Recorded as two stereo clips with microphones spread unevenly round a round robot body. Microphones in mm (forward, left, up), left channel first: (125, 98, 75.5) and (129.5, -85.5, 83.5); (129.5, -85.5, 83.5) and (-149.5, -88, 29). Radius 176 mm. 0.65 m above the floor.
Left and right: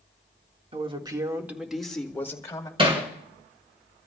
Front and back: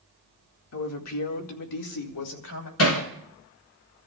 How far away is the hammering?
About 3.5 m.